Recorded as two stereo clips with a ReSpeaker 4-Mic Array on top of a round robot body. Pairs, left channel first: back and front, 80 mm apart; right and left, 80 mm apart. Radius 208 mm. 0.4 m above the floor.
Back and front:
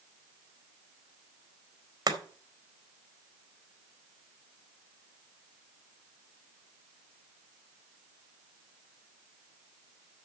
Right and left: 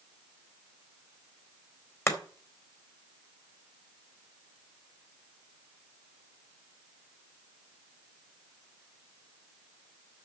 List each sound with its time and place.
2.1 s chopping: 35° right, 2.5 m